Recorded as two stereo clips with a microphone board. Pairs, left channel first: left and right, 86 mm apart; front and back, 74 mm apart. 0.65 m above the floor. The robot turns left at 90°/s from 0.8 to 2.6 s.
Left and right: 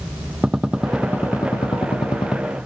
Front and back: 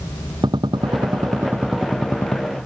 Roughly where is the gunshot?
Behind.